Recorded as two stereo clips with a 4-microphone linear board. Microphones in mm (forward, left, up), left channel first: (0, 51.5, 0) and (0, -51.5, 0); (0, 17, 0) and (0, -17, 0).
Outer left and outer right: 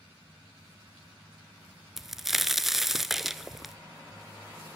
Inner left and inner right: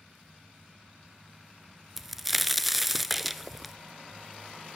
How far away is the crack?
About 0.8 m.